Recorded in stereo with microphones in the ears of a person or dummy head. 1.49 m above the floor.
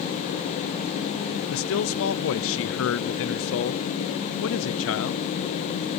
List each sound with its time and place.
1.5 s a man speaking: 60° left (ahead or behind), 0.6 m